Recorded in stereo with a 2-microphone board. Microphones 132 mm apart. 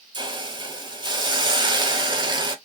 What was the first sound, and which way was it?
A hiss, 35° right (ahead or behind).